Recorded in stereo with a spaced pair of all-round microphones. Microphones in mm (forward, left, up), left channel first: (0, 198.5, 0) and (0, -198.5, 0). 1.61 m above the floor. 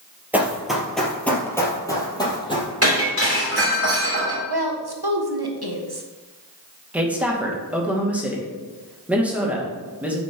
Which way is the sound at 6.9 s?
5° right (ahead or behind).